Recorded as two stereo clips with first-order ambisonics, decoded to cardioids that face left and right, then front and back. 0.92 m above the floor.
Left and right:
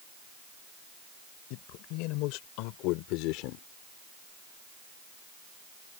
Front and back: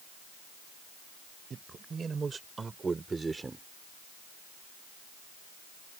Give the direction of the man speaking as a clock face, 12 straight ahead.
8 o'clock.